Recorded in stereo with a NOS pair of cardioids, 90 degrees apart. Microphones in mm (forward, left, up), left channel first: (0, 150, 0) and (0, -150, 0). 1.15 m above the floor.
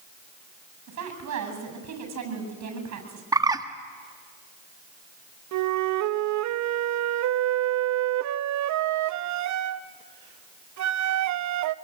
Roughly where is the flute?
Right.